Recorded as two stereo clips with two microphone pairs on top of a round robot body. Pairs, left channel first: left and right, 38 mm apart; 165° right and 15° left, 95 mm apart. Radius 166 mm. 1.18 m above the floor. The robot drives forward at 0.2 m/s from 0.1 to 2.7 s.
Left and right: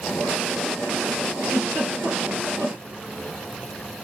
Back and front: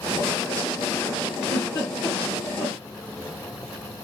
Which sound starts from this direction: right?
A giggle, at 1.4 s.